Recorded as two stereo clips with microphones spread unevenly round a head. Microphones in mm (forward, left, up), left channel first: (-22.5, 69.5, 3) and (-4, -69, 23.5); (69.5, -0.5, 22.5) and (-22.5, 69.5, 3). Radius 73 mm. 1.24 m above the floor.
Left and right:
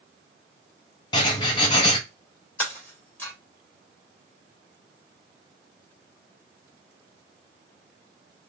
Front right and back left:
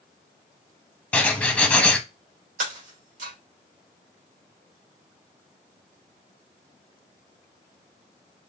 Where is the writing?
35° left, 0.8 m.